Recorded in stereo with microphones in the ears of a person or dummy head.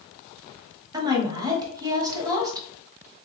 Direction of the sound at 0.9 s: 20° right (ahead or behind).